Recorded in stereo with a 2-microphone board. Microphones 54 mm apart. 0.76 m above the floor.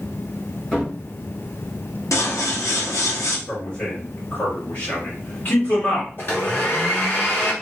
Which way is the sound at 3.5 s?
35° left (ahead or behind).